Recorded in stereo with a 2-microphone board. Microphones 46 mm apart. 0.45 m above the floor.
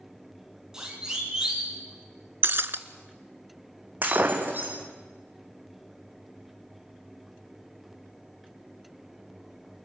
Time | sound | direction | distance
0.7 | a siren | 15° right (ahead or behind) | 7 m
2.4 | breaking glass | 55° right (ahead or behind) | 0.9 m
4.0 | breaking glass | 45° right (ahead or behind) | 3.5 m